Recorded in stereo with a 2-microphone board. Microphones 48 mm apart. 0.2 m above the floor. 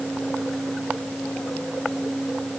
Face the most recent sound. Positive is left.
No sound to turn to.